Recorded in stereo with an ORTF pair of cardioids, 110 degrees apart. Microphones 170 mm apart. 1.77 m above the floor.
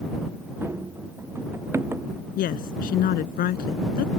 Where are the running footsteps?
15° right.